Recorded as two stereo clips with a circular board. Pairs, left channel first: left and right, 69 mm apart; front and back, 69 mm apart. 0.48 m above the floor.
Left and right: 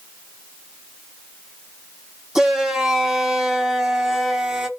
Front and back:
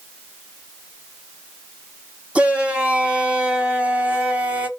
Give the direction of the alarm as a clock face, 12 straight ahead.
No alarm in this recording.